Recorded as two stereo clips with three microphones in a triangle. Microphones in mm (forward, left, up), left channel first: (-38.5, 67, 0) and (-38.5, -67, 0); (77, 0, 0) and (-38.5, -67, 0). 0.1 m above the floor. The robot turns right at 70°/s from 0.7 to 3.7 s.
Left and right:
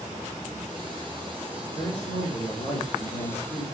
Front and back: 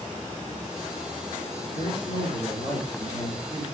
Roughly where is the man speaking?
Ahead left.